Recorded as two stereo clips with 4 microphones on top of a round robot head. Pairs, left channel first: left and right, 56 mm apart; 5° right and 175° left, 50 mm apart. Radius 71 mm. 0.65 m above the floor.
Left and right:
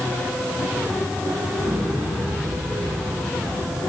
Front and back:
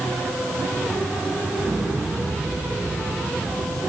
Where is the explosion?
115° right, 5.5 m.